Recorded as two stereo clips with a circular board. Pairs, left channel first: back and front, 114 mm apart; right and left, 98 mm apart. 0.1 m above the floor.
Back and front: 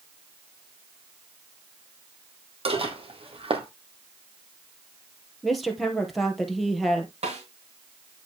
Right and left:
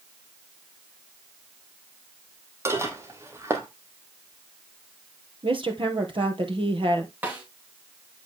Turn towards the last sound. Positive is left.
turn(degrees=15)